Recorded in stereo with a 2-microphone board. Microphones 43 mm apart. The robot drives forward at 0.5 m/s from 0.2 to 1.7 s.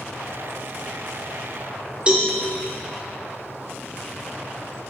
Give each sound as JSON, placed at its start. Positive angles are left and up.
{"t": 2.1, "sound": "a cowbell", "side_deg": -25, "distance_m": 1.8}